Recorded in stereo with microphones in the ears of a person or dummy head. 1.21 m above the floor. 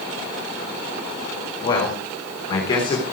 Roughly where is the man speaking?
Left.